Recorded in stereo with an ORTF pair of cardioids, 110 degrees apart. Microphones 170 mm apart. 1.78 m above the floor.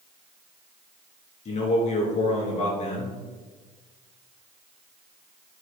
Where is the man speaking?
45° left, 3.5 m.